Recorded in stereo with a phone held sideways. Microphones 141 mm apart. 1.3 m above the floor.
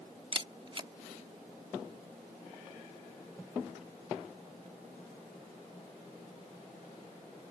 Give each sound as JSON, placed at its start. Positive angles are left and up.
{"t": 0.3, "sound": "a camera shutter", "side_deg": -35}